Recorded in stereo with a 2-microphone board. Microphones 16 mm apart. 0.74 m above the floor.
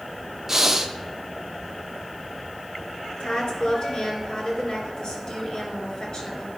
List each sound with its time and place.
0.5 s breathing: 25° right (ahead or behind), 0.7 m
3.2 s a woman speaking: 50° left (ahead or behind), 3 m